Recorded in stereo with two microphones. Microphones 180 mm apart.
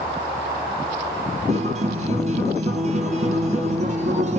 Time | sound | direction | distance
1.5 | a guitar | 40° right (ahead or behind) | 1.9 m